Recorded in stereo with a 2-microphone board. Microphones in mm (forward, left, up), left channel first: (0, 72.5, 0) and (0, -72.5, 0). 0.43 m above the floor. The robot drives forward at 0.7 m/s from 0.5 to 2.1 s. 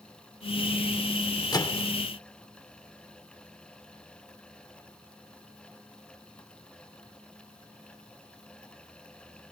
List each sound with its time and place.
1.5 s a microwave: 25° left (ahead or behind), 0.7 m